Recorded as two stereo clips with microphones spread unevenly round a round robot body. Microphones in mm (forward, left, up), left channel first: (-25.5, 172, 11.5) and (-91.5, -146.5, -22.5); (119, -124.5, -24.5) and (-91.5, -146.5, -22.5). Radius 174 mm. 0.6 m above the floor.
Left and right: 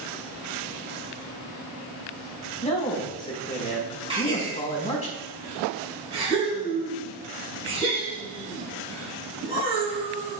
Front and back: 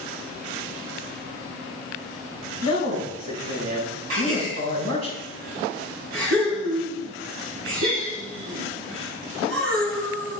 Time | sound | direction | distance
2.6 | a man speaking | 150° left | 5.5 m
4.1 | a gasp | 175° right | 5.5 m